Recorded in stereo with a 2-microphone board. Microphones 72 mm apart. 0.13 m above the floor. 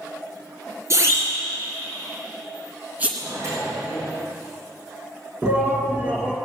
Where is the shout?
25° right (ahead or behind), 1.5 m.